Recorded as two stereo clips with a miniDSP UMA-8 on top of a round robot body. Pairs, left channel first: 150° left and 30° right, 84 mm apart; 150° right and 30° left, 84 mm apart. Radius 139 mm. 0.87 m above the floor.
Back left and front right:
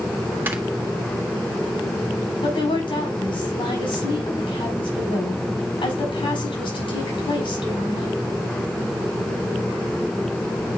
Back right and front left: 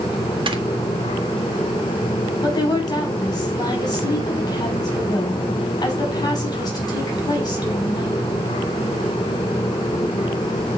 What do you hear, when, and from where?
0.5 s snoring: 35° left, 1.8 m
2.4 s a woman speaking: 165° left, 5 m